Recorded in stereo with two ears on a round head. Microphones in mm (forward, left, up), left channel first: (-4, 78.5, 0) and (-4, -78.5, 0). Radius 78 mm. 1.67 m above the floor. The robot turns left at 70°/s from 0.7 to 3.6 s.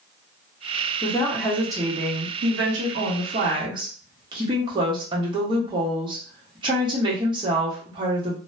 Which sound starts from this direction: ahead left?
A woman speaking, at 1.0 s.